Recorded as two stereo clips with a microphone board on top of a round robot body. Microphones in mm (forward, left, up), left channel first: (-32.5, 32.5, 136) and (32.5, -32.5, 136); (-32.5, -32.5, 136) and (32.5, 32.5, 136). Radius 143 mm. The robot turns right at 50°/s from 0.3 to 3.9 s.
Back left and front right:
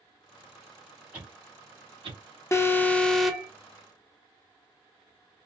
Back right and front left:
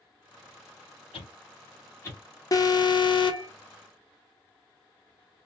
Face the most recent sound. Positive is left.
turn(degrees=-100)